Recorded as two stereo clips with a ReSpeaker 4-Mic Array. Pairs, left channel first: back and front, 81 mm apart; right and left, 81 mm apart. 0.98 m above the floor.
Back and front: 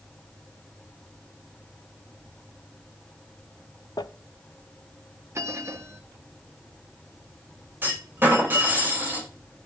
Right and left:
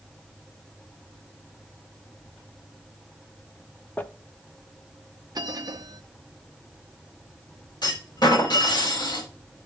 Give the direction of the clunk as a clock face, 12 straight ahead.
2 o'clock.